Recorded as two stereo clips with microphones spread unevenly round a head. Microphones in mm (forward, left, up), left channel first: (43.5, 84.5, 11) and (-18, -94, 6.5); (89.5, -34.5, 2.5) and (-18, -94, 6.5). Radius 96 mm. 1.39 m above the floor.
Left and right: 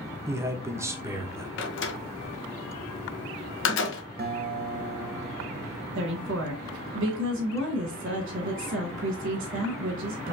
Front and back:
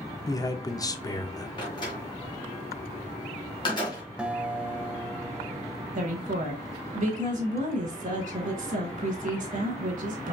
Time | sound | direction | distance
0.3 | a man speaking | 35° right | 0.8 m
1.6 | a door slam | 95° left | 0.9 m
4.2 | a guitar | 70° right | 0.9 m
6.0 | a woman speaking | 140° right | 1.9 m